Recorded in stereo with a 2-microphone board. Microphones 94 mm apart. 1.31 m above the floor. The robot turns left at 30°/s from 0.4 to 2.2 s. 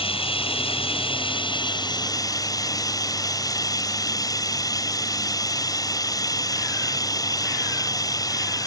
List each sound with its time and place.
0.0 s running water: 95° left; by 8.7 s 40° left